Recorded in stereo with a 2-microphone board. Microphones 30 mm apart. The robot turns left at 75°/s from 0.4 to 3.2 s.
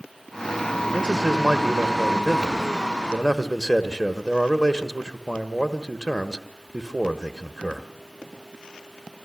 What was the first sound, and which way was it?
A man speaking, 15° right (ahead or behind).